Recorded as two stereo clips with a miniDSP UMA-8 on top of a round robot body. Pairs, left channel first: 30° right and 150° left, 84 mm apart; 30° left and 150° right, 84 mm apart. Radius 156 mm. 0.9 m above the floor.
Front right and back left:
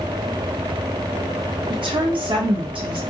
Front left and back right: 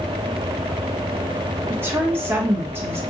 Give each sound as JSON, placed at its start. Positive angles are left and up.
{"t": 1.7, "sound": "a woman speaking", "azimuth_deg": 145, "distance_m": 1.0}